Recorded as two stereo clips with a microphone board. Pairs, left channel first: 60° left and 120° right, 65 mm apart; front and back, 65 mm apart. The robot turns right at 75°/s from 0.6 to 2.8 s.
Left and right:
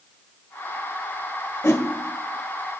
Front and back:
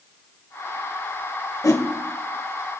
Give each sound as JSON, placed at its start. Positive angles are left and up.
{"t": 1.6, "sound": "a whoosh", "azimuth_deg": 20, "distance_m": 1.1}